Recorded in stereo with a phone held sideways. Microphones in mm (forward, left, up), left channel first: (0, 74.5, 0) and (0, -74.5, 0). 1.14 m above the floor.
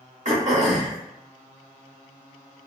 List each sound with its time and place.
0.2 s throat clearing: 55° right (ahead or behind), 1.3 m